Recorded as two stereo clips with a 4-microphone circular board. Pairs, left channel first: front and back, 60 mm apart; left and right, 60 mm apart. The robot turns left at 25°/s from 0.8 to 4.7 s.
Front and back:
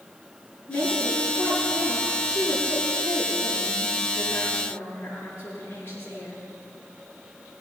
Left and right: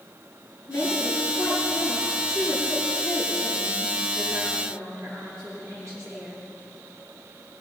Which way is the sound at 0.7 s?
40° left.